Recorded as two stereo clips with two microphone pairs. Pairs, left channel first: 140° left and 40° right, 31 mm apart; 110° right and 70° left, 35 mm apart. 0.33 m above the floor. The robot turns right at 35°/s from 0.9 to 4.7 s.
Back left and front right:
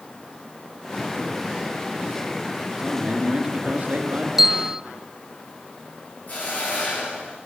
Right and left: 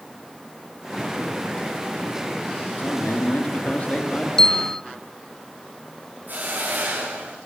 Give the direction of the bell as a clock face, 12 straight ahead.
3 o'clock.